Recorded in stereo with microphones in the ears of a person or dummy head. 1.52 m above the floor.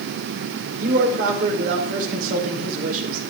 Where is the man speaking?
50° right (ahead or behind), 4.5 m.